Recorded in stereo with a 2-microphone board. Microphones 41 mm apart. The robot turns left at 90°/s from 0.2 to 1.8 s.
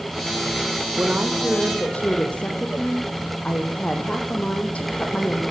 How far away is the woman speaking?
About 5 m.